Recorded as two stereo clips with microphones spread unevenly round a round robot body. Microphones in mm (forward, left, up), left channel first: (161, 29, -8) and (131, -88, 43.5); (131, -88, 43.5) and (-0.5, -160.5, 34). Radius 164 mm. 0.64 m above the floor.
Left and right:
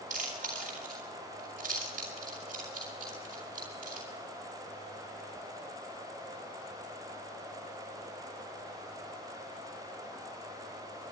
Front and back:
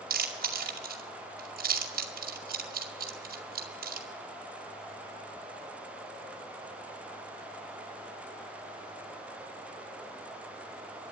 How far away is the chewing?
About 2 m.